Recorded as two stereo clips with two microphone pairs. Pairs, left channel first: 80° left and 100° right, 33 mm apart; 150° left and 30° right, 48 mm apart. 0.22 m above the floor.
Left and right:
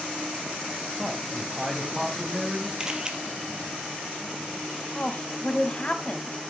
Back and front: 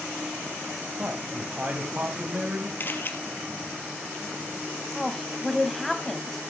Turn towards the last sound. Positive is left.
turn(degrees=70)